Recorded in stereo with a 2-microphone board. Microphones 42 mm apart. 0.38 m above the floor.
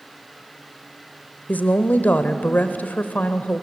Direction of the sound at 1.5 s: 40° left (ahead or behind).